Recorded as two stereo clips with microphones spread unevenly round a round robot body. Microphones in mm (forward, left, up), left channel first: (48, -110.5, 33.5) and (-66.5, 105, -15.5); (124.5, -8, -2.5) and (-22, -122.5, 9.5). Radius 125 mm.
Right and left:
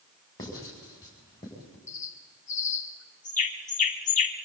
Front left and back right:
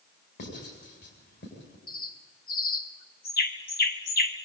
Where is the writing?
15° left, 7.5 m.